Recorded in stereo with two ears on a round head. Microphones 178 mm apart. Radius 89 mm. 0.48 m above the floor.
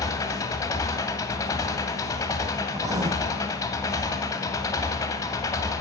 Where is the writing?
20° right (ahead or behind), 1.4 m.